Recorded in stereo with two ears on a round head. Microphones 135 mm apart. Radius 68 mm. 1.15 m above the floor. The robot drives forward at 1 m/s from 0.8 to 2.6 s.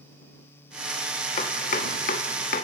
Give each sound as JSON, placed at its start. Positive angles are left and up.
{"t": 1.4, "sound": "chopping", "side_deg": 45, "distance_m": 1.5}